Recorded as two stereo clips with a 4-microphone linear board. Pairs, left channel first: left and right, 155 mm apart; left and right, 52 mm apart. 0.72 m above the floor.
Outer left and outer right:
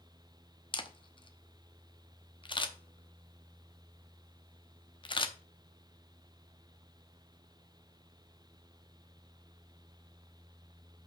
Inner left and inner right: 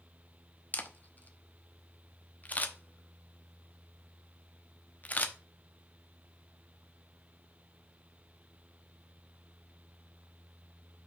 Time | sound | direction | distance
0.7 | a camera shutter | 35° left (ahead or behind) | 0.7 m